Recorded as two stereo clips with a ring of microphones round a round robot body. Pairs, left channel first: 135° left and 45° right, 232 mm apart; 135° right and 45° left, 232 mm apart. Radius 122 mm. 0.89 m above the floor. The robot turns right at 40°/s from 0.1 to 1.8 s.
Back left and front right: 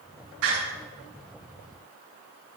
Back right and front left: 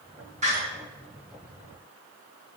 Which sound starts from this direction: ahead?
A door slam, at 0.4 s.